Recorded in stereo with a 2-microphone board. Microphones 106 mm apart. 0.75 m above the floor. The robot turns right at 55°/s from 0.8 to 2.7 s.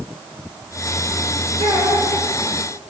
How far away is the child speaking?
About 7.5 m.